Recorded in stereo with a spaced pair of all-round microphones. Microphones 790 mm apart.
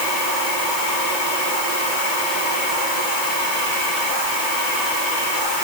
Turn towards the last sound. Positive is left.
No sound to turn to.